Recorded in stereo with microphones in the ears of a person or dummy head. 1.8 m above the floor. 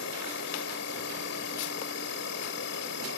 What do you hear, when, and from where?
0.0 s an insect: 70° left (ahead or behind)